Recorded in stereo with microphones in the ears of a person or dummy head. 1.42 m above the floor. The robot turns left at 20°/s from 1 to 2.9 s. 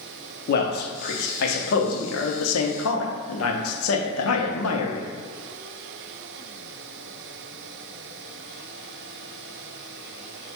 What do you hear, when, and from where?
0.5 s a man speaking: 130° left, 0.8 m; by 5.1 s 95° left, 0.8 m